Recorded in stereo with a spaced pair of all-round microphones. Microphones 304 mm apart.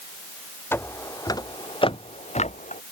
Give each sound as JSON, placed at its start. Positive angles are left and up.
{"t": 0.7, "sound": "footsteps", "side_deg": 5}